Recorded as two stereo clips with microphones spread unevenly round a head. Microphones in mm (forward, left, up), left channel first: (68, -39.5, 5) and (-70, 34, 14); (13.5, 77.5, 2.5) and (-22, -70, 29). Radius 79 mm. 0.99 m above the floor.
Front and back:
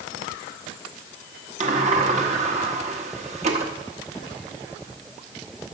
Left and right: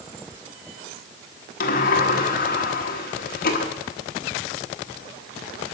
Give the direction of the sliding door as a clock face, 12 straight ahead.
9 o'clock.